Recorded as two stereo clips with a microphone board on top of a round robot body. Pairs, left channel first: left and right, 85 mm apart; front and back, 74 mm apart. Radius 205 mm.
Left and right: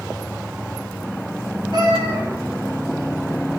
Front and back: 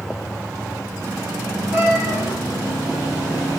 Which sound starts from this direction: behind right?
A cat meowing, at 1.7 s.